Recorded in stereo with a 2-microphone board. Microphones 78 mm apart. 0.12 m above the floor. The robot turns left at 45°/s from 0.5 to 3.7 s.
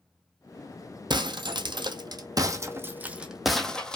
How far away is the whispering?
No whispering in this recording.